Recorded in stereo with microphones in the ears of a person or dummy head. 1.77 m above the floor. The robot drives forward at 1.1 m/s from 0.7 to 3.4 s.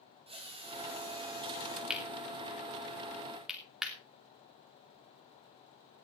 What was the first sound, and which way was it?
A drill, 30° right (ahead or behind).